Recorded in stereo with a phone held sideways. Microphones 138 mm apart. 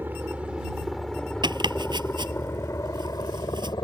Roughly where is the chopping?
Right.